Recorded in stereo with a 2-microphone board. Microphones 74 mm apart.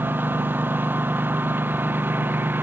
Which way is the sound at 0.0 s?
25° right (ahead or behind).